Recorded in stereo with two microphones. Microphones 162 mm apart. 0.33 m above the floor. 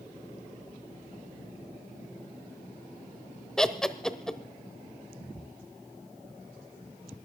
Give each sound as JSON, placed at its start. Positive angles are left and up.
{"t": 3.6, "sound": "laughter", "side_deg": 5, "distance_m": 1.0}